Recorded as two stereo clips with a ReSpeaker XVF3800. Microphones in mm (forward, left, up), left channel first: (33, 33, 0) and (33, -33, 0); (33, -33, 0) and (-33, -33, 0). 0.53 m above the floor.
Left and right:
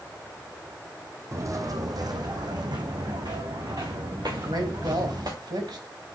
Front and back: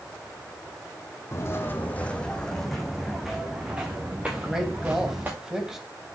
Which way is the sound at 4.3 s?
100° right.